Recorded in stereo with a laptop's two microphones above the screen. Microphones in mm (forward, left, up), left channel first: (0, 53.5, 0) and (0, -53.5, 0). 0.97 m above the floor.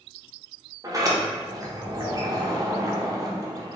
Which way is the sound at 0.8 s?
35° right (ahead or behind).